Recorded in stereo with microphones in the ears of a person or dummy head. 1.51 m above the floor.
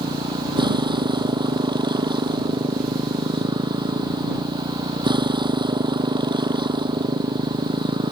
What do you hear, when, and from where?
0.0 s a motorcycle: 30° right (ahead or behind)